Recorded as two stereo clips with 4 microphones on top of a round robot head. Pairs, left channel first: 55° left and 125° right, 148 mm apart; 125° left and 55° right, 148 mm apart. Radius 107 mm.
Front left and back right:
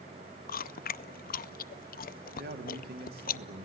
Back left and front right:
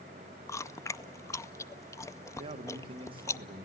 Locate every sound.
0.5 s chewing: 55° left, 0.6 m
2.4 s a man speaking: 115° right, 2.5 m